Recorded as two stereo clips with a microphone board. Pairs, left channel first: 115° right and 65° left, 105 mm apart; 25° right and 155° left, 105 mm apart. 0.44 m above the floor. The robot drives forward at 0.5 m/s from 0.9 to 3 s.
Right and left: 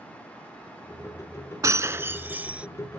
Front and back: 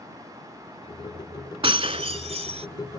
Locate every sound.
1.6 s breaking glass: 125° left; by 2.7 s 145° left